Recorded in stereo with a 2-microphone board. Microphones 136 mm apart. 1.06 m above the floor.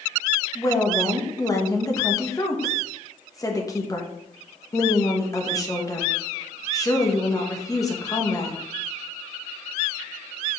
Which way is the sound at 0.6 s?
25° left (ahead or behind).